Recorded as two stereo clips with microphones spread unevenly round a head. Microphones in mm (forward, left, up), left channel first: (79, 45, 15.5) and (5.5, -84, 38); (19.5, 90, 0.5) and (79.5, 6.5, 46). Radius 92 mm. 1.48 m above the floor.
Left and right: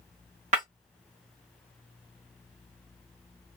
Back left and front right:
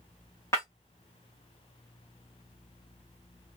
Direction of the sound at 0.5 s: 145° right.